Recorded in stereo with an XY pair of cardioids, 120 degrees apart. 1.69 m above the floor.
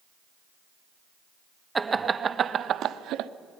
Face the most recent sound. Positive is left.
turn(degrees=-75)